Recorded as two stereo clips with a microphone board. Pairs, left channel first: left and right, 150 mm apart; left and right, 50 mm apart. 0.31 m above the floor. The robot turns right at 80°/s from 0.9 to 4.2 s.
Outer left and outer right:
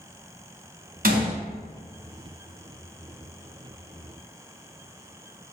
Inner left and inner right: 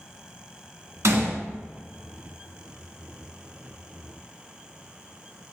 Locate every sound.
1.0 s a gunshot: 70° right (ahead or behind), 1.1 m; by 1.4 s 75° right (ahead or behind), 1.1 m